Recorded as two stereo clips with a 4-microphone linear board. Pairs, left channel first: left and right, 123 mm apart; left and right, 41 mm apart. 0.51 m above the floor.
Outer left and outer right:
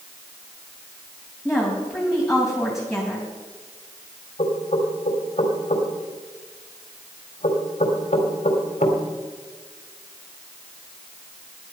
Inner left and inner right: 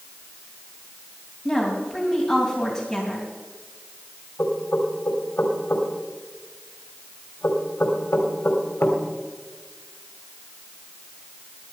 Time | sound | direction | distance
1.4 | a woman speaking | centre (ahead or behind) | 3 m
4.4 | knocking | 65° left (ahead or behind) | 2.5 m